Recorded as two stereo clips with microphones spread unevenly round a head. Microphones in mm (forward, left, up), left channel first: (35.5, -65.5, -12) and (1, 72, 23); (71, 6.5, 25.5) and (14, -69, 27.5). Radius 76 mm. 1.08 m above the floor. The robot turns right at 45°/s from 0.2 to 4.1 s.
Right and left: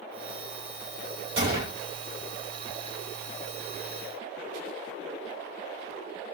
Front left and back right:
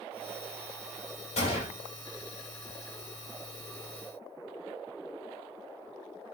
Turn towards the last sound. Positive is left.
turn(degrees=-170)